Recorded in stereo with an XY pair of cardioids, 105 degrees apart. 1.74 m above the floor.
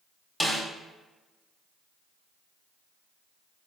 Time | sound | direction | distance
0.4 | a snare drum | 5° left | 1.1 m